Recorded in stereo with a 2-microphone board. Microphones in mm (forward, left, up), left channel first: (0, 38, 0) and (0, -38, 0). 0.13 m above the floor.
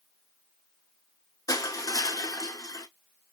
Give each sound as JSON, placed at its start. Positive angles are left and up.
{"t": 1.5, "sound": "crushing", "side_deg": 50, "distance_m": 0.5}